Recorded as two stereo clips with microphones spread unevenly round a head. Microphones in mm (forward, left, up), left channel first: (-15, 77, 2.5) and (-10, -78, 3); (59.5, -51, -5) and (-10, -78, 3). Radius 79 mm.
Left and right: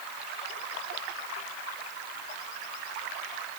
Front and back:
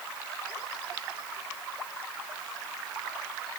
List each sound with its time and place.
Only background noise.